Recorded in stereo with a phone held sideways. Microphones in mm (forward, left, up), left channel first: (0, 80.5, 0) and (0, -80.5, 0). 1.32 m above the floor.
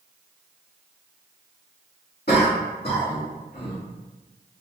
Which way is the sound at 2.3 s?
80° left.